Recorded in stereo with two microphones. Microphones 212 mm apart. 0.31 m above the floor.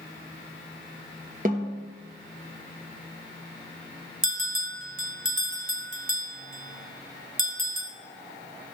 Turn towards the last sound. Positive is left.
turn(degrees=-70)  # may be behind; listen again after turning